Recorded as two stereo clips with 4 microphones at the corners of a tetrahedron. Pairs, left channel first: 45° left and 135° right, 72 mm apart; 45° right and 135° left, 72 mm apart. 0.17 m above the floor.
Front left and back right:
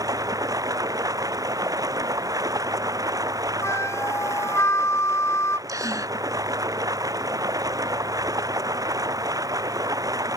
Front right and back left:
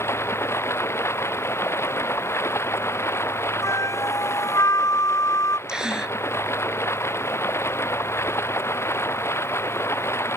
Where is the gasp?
150° right.